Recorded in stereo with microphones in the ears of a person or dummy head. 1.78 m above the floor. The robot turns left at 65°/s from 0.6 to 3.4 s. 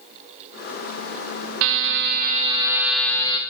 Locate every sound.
1.6 s a buzzer: 85° right, 1.8 m; by 3.4 s 160° left, 1.8 m